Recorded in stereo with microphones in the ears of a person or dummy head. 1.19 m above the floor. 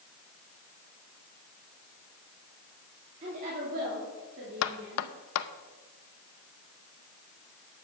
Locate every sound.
3.2 s a woman speaking: 40° right (ahead or behind), 3 m; by 5.1 s 70° right (ahead or behind), 3.5 m
4.6 s knocking: 75° left (ahead or behind), 0.7 m